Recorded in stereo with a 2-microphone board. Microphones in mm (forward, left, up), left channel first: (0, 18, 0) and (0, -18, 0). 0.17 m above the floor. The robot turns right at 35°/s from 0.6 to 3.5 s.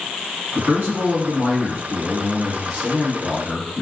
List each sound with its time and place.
0.6 s a man speaking: 80° right, 1.8 m; by 3.8 s 20° left, 1.8 m